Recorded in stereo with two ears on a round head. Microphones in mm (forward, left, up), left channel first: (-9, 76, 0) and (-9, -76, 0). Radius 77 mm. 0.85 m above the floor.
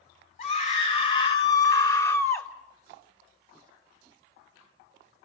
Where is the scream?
45° left (ahead or behind), 2.5 m; by 2.5 s 10° left (ahead or behind), 2.5 m.